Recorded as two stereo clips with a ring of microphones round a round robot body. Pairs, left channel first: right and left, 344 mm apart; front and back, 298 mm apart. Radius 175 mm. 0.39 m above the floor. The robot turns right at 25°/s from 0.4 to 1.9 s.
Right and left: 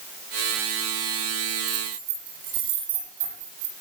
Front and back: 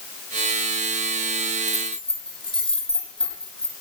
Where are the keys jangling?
85° left, 9.5 m; by 3.7 s 90° left, 9.5 m.